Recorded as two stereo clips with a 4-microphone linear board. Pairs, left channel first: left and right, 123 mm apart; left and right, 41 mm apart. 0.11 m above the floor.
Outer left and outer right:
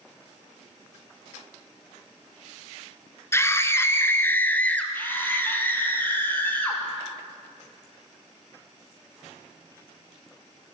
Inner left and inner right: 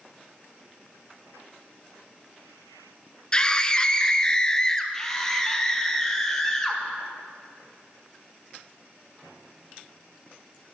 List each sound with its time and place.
3.3 s a scream: 20° left (ahead or behind), 1.1 m; by 4.8 s 10° left (ahead or behind), 1.6 m
4.9 s a scream: 15° left (ahead or behind), 2.5 m